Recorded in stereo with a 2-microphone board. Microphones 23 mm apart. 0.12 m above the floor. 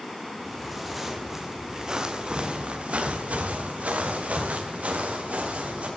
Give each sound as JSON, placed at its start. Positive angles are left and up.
{"t": 0.4, "sound": "footsteps", "side_deg": 5, "distance_m": 3.5}